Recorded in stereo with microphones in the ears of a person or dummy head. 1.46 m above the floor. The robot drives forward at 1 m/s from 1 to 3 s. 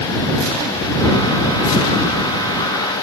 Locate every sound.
Only background noise.